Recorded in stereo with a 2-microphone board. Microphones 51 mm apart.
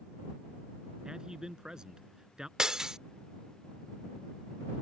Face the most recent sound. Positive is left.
turn(degrees=-10)  # may be behind; listen again after turning